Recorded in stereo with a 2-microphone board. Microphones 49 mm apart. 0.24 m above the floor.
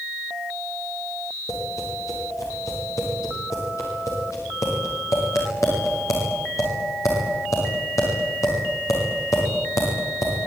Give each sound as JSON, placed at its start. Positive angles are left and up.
{"t": 1.5, "sound": "tapping", "side_deg": 90, "distance_m": 10.0}